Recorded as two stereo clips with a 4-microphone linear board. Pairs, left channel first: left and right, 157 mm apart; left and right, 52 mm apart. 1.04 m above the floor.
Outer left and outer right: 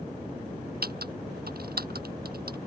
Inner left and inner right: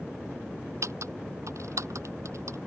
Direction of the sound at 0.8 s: 75° right (ahead or behind).